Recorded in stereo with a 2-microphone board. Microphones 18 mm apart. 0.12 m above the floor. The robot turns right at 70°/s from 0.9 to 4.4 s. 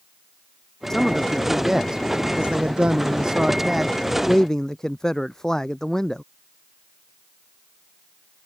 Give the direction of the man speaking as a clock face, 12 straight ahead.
7 o'clock.